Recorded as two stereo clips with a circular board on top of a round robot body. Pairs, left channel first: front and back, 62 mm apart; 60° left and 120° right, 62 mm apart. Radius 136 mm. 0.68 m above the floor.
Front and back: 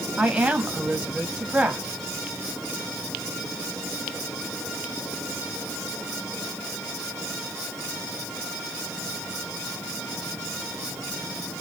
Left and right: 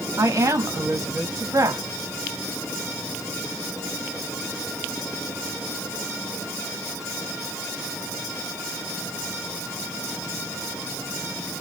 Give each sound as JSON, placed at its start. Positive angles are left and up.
{"t": 0.2, "sound": "a woman speaking", "azimuth_deg": -110, "distance_m": 2.0}